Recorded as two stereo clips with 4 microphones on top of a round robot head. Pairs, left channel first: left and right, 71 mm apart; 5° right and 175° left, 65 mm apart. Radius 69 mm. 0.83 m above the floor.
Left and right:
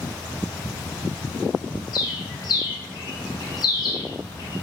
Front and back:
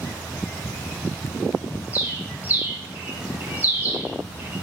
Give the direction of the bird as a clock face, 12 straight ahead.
8 o'clock.